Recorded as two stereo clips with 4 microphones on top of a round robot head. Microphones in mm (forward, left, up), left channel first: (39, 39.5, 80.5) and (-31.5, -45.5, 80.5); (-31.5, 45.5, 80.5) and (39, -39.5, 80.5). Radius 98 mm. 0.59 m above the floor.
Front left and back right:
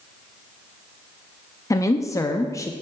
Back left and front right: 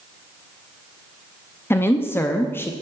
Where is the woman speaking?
80° left, 0.7 m.